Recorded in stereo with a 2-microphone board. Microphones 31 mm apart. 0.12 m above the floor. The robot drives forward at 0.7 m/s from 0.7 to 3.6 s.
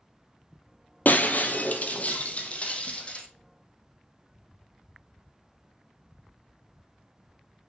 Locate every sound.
1.1 s breaking glass: 65° left (ahead or behind), 1.7 m; by 3.2 s 35° left (ahead or behind), 2.5 m